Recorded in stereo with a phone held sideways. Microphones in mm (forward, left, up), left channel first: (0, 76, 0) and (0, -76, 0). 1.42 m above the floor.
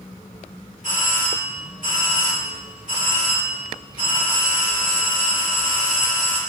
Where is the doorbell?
60° right (ahead or behind), 3 m.